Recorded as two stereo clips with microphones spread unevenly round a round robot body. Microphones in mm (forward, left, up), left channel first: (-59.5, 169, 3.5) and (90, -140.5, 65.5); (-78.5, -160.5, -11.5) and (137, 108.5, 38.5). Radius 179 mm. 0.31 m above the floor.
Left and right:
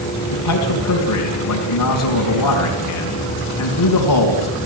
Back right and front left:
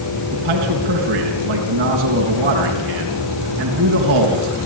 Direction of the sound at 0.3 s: 110° left.